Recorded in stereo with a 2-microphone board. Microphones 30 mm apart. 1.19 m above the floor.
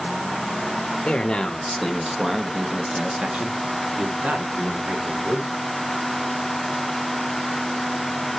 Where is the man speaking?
35° left (ahead or behind), 1.3 m; by 5.5 s 60° right (ahead or behind), 3 m.